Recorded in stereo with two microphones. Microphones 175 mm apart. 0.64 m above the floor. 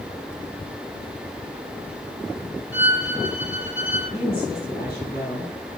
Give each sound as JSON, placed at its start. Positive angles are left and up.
{"t": 2.7, "sound": "a violin", "side_deg": -5, "distance_m": 4.0}
{"t": 4.1, "sound": "a woman speaking", "side_deg": 60, "distance_m": 4.0}